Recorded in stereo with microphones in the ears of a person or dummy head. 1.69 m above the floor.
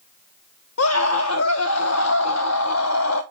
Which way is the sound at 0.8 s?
80° left.